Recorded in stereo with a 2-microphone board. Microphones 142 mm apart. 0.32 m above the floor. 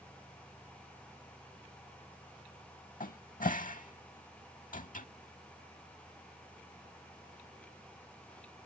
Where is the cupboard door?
70° left (ahead or behind).